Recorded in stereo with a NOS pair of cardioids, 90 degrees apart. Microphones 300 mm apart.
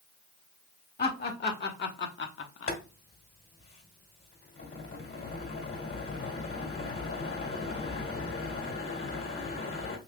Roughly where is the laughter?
Ahead left.